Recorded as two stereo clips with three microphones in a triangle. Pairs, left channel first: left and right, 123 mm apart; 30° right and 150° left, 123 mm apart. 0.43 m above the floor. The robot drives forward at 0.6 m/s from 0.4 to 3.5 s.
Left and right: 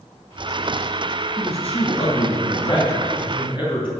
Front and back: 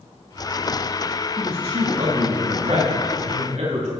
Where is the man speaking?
115° left, 2.5 m; by 3.9 s 135° left, 3.5 m.